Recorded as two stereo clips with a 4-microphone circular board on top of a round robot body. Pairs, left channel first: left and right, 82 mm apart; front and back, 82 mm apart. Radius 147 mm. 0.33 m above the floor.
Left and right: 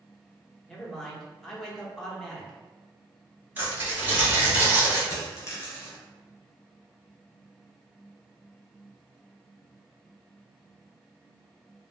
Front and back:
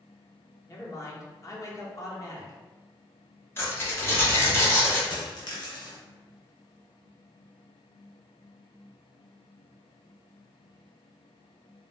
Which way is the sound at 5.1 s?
35° left.